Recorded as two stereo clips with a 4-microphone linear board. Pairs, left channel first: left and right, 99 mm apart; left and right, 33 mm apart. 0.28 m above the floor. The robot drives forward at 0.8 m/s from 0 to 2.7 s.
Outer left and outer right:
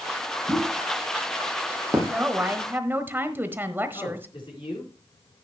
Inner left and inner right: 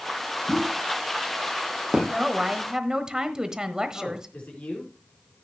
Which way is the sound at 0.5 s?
25° right (ahead or behind).